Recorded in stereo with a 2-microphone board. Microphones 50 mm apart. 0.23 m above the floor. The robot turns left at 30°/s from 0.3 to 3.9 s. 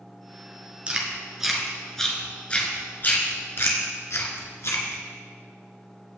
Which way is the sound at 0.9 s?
20° right (ahead or behind).